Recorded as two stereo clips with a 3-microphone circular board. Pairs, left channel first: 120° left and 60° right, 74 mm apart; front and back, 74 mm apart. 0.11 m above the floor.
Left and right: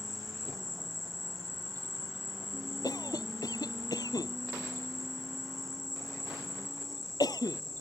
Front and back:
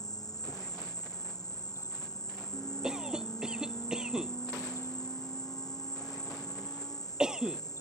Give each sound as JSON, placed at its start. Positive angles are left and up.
{"t": 0.0, "sound": "an insect", "azimuth_deg": 30}
{"t": 2.8, "sound": "a cough", "azimuth_deg": 100}